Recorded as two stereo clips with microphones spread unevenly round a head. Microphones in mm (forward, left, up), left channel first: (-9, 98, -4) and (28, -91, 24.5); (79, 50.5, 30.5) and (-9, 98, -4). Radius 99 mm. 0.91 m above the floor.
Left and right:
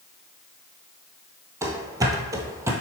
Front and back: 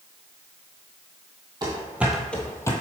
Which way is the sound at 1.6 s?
140° right.